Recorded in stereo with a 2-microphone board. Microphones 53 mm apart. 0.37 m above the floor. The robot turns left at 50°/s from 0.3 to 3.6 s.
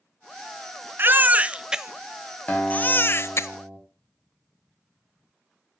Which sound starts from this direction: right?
A baby crying, at 1.0 s.